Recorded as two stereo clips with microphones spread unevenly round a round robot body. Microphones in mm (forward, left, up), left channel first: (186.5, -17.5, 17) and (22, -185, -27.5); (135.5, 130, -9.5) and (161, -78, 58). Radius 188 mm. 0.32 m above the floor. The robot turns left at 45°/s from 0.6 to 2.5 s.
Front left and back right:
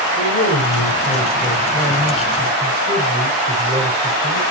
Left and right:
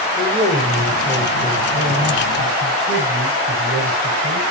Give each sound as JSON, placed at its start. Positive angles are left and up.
{"t": 0.2, "sound": "a man speaking", "azimuth_deg": 5, "distance_m": 8.5}